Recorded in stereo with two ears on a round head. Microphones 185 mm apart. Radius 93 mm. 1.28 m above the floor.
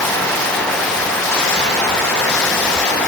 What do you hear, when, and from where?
Only background noise.